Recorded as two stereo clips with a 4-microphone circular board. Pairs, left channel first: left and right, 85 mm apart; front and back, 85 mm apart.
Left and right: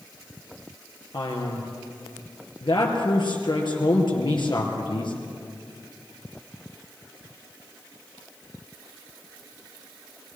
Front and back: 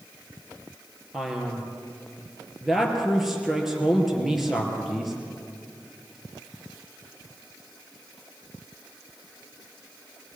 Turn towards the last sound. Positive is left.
turn(degrees=95)